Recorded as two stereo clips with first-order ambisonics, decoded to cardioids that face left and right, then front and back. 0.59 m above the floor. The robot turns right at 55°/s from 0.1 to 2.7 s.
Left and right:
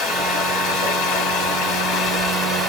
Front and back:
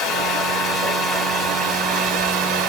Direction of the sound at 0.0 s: 35° left.